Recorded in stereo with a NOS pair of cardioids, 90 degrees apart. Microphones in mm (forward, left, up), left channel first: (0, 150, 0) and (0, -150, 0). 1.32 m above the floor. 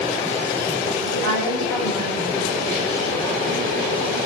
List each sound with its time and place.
1.1 s a woman speaking: 65° left, 5.5 m